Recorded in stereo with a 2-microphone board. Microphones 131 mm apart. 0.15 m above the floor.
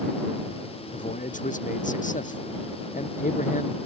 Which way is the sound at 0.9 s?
80° left.